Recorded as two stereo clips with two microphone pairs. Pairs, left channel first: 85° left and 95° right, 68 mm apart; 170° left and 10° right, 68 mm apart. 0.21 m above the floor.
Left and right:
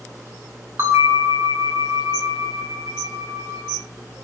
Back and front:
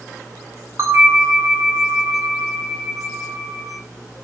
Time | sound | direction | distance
0.8 | a bell | 50° right | 2.0 m